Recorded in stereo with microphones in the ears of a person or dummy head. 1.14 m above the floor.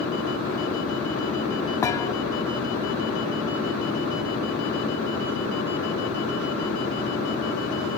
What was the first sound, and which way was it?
A thud, 10° left (ahead or behind).